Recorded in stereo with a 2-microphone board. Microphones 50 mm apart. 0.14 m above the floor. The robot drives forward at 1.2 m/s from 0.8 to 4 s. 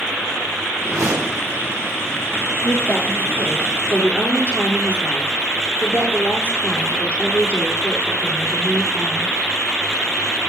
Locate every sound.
0.8 s a whoosh: 80° right, 3 m
2.6 s a woman speaking: 55° left (ahead or behind), 4 m; by 9.3 s 40° left (ahead or behind), 5 m